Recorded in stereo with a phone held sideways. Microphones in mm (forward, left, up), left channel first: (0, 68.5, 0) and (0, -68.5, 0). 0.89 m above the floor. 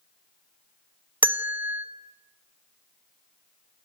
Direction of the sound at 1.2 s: 15° right (ahead or behind).